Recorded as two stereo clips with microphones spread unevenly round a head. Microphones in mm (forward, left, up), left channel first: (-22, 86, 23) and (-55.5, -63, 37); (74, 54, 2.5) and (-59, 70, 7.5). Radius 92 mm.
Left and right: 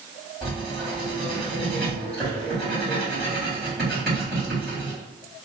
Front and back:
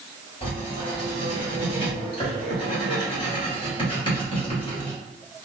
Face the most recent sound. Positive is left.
turn(degrees=-15)